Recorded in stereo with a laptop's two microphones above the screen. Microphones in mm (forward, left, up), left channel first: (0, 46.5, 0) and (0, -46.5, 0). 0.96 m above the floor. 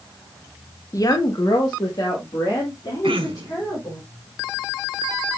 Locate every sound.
0.9 s a woman speaking: 35° left (ahead or behind), 0.8 m; by 4.0 s 45° left (ahead or behind), 4 m
3.0 s throat clearing: 70° right (ahead or behind), 1.0 m